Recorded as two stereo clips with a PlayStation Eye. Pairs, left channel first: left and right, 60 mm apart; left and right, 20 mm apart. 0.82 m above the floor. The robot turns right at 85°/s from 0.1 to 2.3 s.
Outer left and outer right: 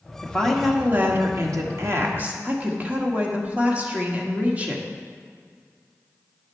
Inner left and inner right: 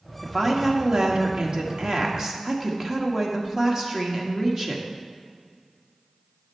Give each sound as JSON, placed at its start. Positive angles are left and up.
{"t": 0.2, "sound": "a woman speaking", "azimuth_deg": 150, "distance_m": 1.4}